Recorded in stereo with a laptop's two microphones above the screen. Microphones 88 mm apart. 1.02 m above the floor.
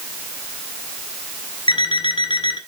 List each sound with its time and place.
1.7 s an alarm clock: 75° left (ahead or behind), 1.6 m